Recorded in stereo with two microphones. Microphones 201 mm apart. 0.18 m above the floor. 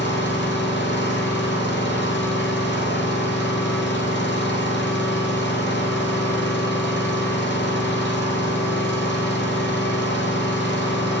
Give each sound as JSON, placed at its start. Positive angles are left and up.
{"t": 0.0, "sound": "an engine running", "side_deg": 70, "distance_m": 1.9}